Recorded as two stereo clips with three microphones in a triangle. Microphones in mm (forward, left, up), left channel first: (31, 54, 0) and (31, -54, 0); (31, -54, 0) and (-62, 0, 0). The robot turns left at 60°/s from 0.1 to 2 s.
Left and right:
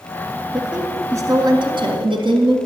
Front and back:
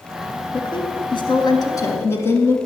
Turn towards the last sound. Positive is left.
turn(degrees=-90)